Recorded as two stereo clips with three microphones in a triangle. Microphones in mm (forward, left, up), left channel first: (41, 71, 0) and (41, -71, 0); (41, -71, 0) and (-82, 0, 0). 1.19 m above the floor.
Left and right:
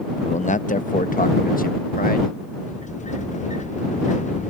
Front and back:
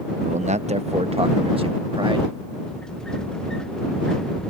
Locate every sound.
0.2 s a man speaking: 125° left; by 2.4 s 95° left
2.6 s a sliding door: 55° left